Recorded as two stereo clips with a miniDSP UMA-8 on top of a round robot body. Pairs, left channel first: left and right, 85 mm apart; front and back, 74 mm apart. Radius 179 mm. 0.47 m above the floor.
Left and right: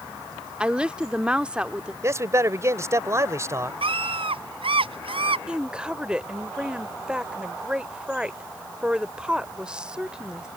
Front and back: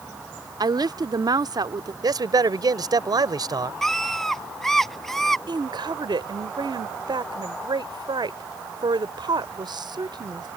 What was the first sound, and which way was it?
A woman speaking, 170° right.